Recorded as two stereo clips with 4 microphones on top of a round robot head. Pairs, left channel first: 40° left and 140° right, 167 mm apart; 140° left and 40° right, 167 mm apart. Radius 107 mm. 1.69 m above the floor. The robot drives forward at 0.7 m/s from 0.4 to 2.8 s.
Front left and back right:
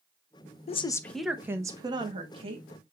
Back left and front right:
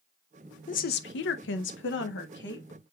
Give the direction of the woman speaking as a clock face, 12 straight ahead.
9 o'clock.